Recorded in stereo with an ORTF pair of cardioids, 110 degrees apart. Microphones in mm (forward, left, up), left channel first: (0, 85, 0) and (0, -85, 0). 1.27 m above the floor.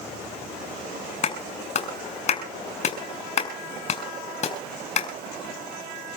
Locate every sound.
1.2 s a clap: 40° left, 6 m